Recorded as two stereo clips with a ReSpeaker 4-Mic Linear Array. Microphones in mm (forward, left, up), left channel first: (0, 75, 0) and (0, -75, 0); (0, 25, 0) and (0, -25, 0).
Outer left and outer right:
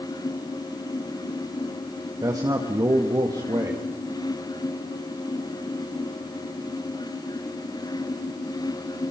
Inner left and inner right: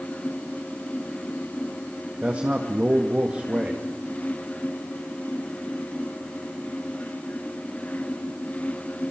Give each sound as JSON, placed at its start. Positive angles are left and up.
{"t": 2.2, "sound": "a man speaking", "side_deg": -25, "distance_m": 1.9}